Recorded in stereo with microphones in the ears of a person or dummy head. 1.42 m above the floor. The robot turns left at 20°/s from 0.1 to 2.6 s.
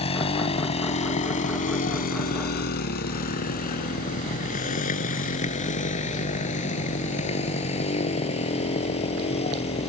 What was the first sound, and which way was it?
A motorcycle, 30° left (ahead or behind).